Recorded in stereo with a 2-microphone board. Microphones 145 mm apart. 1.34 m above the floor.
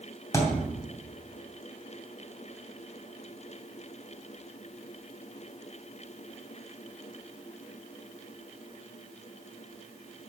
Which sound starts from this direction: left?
A thud, at 0.3 s.